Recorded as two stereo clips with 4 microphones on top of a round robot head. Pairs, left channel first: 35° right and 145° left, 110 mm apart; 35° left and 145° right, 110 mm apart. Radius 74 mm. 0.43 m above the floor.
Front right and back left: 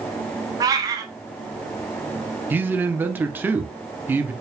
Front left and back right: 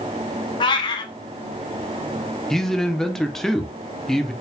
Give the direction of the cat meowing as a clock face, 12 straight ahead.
9 o'clock.